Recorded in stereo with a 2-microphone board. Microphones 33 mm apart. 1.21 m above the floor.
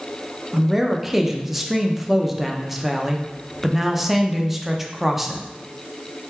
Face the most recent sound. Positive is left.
turn(degrees=-5)  # may be behind; listen again after turning